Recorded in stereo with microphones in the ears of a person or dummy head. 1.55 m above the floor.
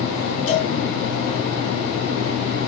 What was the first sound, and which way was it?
A cowbell, 40° left (ahead or behind).